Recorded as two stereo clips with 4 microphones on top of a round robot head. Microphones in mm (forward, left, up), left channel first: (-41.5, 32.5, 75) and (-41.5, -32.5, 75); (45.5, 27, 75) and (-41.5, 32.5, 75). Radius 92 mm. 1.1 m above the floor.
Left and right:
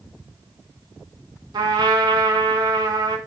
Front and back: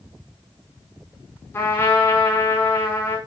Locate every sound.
1.5 s a trumpet: 70° right, 5.5 m